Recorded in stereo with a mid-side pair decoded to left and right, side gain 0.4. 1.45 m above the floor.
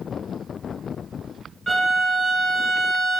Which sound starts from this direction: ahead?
A violin, at 1.7 s.